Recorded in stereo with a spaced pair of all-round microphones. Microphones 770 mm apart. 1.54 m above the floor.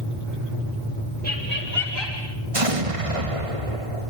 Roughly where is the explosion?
Right.